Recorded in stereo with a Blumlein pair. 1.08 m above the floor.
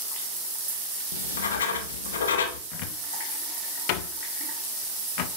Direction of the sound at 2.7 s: 45° left.